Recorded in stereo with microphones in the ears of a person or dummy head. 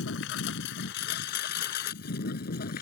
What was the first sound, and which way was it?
A lawn mower, 75° left (ahead or behind).